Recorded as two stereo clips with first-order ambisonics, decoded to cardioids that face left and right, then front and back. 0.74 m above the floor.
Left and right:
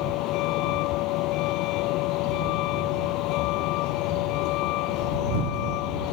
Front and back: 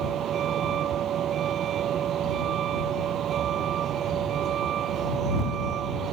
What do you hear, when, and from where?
0.0 s a vehicle: 125° left